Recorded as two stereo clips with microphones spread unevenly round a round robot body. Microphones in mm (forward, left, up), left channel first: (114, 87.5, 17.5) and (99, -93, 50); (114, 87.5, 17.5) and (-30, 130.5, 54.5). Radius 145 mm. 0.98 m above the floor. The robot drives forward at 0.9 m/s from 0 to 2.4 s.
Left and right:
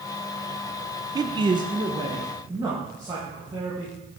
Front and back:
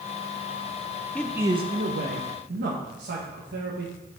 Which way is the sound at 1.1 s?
25° right.